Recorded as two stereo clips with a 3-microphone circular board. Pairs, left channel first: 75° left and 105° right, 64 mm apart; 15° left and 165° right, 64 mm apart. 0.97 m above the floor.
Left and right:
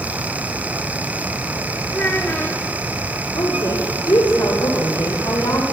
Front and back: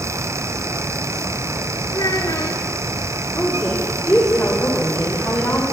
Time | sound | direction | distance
1.9 | a child speaking | 10° left | 1.5 m
3.4 | a woman speaking | 85° left | 3 m